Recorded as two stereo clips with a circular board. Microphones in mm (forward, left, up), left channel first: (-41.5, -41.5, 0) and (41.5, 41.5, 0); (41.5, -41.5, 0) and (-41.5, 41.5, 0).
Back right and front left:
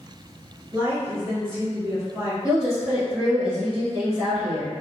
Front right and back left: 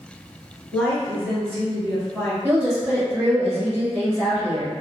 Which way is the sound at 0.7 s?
20° left.